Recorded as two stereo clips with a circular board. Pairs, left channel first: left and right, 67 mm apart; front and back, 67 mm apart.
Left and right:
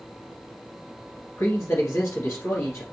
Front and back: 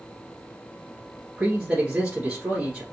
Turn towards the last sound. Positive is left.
turn(degrees=110)